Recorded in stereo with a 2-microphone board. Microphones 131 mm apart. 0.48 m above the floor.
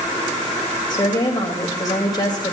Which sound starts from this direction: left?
A woman speaking, at 0.9 s.